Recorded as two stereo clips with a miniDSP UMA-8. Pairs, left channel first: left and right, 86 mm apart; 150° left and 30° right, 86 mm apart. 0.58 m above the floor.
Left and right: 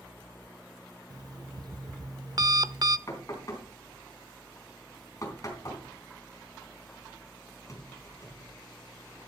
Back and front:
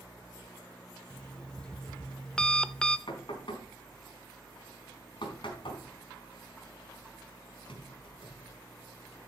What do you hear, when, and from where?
1.1 s an alarm clock: 130° right, 0.7 m
3.1 s knocking: 140° left, 3.5 m